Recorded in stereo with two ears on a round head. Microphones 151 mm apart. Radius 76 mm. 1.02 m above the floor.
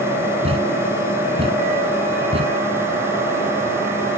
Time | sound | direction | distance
0.4 | a thud | 35° right (ahead or behind) | ?